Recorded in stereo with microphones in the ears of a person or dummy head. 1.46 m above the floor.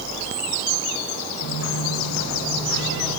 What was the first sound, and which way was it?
Footsteps, 70° left (ahead or behind).